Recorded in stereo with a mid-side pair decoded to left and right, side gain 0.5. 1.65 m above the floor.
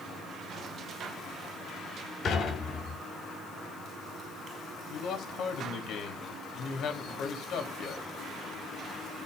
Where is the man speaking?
65° left, 4 m.